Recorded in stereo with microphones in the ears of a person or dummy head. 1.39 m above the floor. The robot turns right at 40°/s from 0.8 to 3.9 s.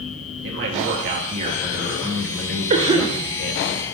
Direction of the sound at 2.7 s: 35° right (ahead or behind).